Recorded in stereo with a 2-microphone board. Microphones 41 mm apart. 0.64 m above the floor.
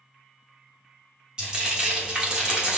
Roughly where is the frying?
Centre.